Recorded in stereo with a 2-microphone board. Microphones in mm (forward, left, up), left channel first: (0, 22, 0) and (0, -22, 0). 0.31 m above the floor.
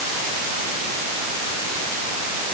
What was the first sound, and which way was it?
Only background noise.